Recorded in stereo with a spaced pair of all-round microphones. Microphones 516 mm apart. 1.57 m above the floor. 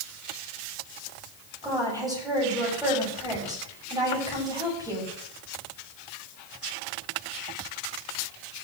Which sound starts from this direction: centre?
A woman speaking, at 1.6 s.